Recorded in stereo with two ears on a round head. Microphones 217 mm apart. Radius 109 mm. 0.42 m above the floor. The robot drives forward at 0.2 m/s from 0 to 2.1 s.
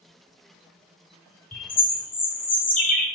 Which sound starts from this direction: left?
A bird, at 1.5 s.